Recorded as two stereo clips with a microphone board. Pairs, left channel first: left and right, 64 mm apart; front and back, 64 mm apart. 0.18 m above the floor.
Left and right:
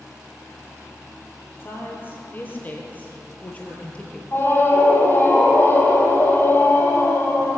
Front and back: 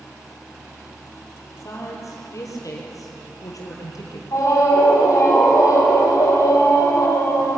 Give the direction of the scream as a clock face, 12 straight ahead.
11 o'clock.